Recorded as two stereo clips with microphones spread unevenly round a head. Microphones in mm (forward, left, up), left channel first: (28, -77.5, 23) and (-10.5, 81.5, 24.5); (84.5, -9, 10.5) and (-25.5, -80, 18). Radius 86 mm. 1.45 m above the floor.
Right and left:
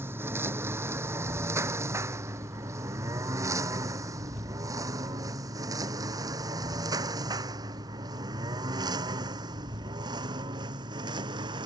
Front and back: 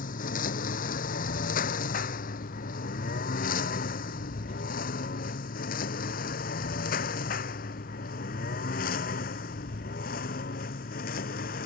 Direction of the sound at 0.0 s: 25° left.